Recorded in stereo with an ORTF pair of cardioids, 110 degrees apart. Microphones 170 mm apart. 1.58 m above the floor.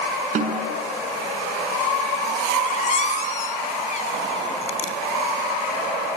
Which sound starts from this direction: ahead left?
A squeak, at 2.6 s.